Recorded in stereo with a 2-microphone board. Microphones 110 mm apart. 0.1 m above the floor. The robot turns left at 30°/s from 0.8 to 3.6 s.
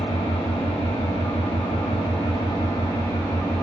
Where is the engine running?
100° left, 1.2 m; by 3.6 s 15° left, 1.2 m.